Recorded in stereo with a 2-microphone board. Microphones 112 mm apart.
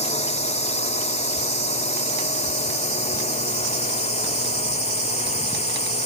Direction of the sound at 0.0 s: 75° left (ahead or behind).